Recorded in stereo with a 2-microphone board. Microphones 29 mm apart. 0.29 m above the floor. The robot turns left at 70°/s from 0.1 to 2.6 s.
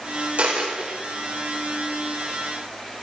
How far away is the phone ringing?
I don't hear a phone ringing.